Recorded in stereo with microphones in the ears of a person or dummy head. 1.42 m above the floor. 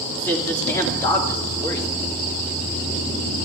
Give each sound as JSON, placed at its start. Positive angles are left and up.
{"t": 0.2, "sound": "a man speaking", "side_deg": 10, "distance_m": 2.5}